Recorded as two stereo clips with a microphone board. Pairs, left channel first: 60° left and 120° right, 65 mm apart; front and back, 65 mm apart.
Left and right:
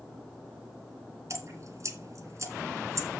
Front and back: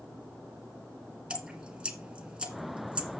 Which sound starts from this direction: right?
Dripping, at 1.3 s.